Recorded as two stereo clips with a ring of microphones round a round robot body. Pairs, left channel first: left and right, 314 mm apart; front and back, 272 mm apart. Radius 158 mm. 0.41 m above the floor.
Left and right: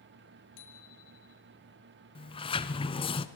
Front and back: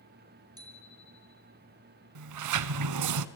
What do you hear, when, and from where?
0.6 s a bicycle bell: 105° left, 4 m
2.1 s a sliding door: 165° left, 1.0 m